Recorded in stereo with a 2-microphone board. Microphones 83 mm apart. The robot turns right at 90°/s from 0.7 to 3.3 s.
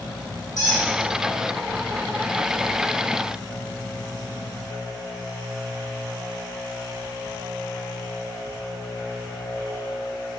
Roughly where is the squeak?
Left.